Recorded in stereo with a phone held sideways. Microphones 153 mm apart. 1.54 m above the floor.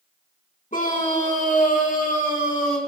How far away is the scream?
About 1.8 m.